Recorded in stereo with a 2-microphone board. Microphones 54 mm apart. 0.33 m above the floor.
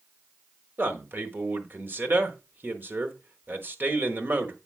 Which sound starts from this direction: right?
A man speaking, at 0.8 s.